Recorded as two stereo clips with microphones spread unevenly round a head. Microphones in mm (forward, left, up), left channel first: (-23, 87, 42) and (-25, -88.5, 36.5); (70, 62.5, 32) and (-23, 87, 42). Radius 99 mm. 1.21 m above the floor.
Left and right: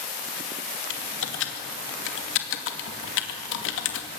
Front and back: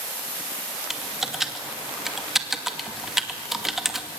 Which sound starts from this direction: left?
Typing on a keyboard, at 0.9 s.